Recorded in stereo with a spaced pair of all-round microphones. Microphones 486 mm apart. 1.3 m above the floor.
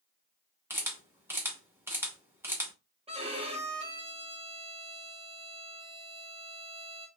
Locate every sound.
0.7 s a camera shutter: 5° right (ahead or behind), 0.9 m
3.1 s a violin: 10° right (ahead or behind), 0.8 m